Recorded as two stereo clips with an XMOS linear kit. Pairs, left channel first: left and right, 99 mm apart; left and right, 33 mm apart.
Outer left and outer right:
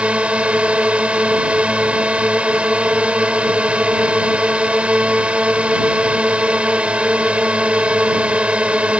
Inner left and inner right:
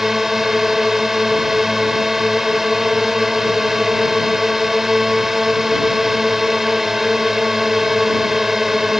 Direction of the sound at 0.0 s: 10° right (ahead or behind).